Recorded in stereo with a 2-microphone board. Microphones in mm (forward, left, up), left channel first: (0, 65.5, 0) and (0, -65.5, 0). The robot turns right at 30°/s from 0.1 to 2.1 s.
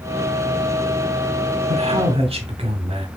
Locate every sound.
1.7 s a man speaking: 50° right (ahead or behind), 1.0 m